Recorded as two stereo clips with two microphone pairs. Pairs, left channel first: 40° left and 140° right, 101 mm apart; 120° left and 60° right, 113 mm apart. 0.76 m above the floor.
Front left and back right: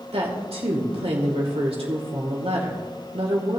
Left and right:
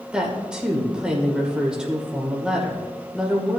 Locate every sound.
0.1 s a woman speaking: 145° right, 2.5 m